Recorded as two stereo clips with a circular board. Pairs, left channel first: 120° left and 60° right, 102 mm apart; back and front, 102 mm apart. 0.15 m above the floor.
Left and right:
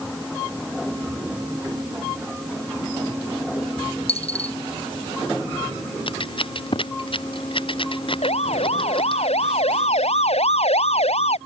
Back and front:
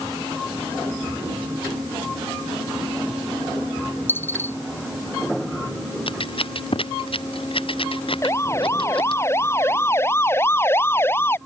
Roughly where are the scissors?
Behind left.